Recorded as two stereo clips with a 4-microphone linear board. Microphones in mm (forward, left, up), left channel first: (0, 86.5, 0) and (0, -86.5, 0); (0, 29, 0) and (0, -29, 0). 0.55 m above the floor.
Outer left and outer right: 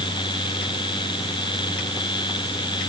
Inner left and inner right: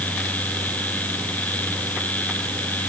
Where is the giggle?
I don't hear a giggle.